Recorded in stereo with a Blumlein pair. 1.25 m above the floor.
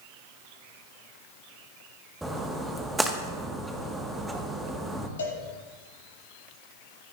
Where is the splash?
5° right, 1.4 m.